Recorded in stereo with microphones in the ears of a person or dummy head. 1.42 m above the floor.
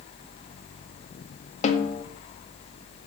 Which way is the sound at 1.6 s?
40° left (ahead or behind).